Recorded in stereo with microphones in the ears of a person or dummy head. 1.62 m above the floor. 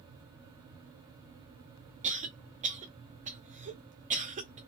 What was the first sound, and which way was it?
A cough, 30° right (ahead or behind).